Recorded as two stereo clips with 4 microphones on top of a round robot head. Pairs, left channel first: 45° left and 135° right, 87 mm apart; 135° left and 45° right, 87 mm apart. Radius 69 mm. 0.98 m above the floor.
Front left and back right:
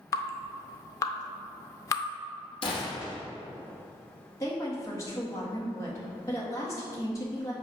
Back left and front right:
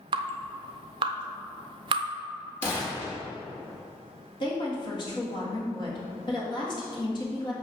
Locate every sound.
0.1 s dripping: 10° right, 0.5 m
2.6 s a gunshot: 65° left, 1.9 m
4.4 s a woman speaking: 100° left, 1.6 m